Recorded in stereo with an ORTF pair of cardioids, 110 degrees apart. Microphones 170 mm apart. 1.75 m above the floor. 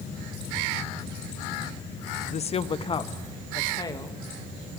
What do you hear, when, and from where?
2.3 s a woman speaking: 40° left, 1.0 m; by 4.8 s 20° left, 4 m